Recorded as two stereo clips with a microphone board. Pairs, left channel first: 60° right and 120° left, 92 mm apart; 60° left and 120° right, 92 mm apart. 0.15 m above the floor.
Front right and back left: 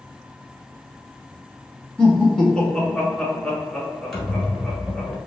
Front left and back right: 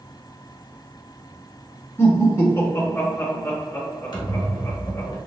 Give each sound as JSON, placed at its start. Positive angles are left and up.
{"t": 2.0, "sound": "laughter", "azimuth_deg": 15, "distance_m": 1.3}
{"t": 4.1, "sound": "a squeak", "azimuth_deg": 25, "distance_m": 1.4}